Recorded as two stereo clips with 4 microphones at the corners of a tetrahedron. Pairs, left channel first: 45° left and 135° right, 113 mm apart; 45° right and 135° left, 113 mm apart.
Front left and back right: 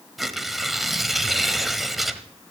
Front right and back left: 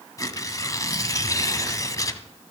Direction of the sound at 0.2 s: 50° right.